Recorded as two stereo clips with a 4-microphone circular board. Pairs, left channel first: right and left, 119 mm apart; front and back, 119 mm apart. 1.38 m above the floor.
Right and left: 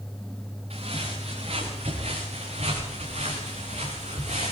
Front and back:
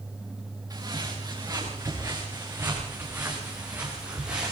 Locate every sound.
0.7 s footsteps: 120° left, 7.5 m; by 4.5 s 100° left, 6 m